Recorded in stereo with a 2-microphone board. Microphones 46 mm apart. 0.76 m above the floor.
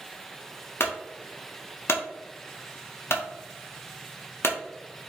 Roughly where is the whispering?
No whispering in this recording.